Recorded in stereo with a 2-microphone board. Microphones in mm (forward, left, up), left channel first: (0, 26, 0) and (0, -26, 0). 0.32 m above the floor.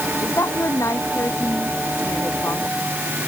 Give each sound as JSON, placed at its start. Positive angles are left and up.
{"t": 0.2, "sound": "a woman speaking", "side_deg": 70}